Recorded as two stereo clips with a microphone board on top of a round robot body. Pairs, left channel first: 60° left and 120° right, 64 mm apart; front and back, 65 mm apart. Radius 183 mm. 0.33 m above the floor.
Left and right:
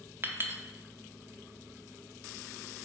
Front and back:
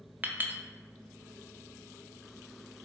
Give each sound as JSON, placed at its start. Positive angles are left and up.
{"t": 0.2, "sound": "a clink", "azimuth_deg": -140, "distance_m": 0.7}